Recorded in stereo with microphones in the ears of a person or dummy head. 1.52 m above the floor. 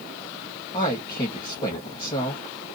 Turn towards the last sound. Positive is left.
turn(degrees=25)  # may be behind; listen again after turning